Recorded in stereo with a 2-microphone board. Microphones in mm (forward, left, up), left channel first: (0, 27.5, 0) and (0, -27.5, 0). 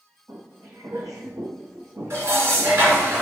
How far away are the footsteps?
About 0.8 m.